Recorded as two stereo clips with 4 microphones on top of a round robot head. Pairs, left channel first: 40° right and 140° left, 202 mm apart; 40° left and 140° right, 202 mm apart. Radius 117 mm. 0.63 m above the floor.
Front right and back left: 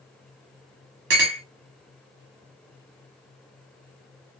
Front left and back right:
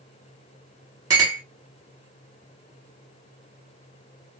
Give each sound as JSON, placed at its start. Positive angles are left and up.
{"t": 1.1, "sound": "a clink", "azimuth_deg": 150, "distance_m": 1.0}